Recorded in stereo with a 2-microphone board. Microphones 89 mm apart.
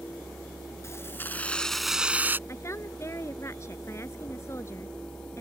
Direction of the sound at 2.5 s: 35° left (ahead or behind).